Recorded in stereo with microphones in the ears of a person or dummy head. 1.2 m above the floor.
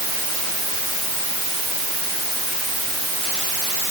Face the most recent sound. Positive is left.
No sound to turn to.